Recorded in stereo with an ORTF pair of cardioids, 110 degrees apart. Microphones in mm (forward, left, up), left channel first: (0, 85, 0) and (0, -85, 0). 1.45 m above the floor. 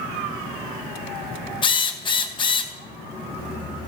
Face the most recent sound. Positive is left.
turn(degrees=30)